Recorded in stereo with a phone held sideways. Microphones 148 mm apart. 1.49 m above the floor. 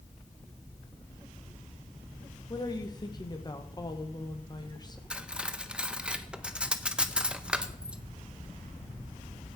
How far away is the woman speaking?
About 1.7 m.